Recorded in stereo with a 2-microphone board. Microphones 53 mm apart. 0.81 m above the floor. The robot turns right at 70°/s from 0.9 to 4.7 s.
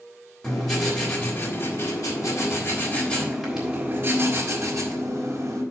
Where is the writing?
5° left, 3.5 m; by 5.6 s 85° right, 3.5 m.